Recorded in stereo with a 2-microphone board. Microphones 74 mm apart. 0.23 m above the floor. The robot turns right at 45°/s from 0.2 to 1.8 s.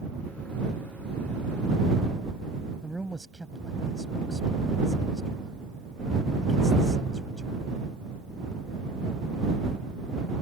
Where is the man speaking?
Centre (ahead or behind).